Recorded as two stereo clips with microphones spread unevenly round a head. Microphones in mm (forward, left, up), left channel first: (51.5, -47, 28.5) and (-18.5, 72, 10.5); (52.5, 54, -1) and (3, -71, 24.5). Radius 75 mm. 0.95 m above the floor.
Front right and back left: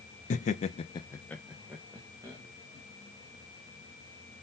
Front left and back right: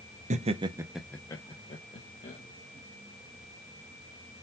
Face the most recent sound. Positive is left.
turn(degrees=50)